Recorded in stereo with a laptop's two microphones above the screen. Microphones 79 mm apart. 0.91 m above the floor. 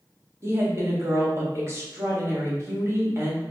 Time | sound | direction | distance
0.4 | a woman speaking | 35° right (ahead or behind) | 1.8 m